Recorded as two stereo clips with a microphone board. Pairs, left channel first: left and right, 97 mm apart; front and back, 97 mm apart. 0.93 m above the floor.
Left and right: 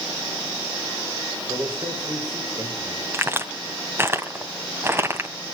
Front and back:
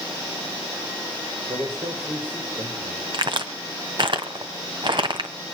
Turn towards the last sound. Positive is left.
turn(degrees=-150)